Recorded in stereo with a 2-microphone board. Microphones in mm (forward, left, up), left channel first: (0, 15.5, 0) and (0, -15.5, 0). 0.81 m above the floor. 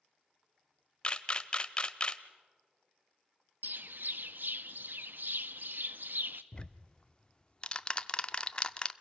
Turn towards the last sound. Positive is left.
turn(degrees=25)  # may be behind; listen again after turning